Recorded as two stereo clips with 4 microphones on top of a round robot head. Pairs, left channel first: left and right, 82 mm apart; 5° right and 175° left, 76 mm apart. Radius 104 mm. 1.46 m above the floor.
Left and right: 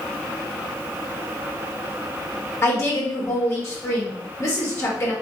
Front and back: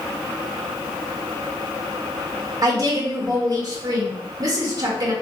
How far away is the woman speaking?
About 1.1 m.